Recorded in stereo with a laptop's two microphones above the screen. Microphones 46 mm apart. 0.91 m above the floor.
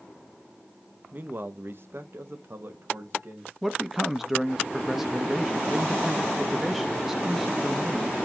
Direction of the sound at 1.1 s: 40° right (ahead or behind).